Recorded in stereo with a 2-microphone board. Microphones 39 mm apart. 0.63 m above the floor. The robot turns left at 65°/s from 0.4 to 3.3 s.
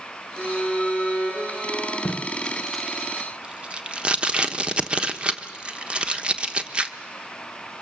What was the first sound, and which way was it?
A violin, 130° left.